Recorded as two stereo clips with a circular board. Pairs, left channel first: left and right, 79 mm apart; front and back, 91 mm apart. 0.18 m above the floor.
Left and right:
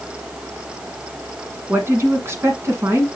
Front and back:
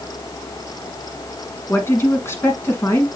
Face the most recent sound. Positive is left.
turn(degrees=-50)